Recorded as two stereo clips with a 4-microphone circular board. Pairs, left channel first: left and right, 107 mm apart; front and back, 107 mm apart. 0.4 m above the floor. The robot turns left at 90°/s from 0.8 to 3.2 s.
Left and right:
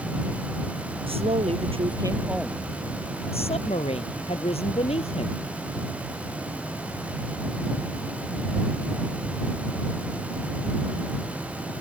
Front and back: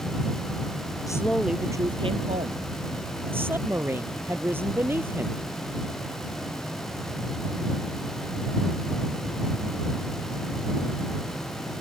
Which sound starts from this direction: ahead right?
A woman speaking, at 1.1 s.